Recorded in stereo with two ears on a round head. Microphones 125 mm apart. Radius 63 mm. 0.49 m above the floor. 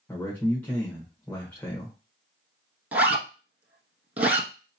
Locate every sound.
0.1 s a man speaking: 15° left (ahead or behind), 1.2 m
2.9 s a zipper: 15° right (ahead or behind), 1.0 m